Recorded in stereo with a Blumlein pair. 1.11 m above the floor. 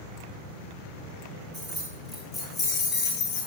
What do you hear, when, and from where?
1.5 s keys jangling: 15° right, 1.2 m; by 3.5 s 45° left, 0.8 m